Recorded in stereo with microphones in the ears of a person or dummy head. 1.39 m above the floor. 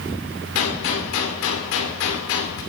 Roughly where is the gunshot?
Left.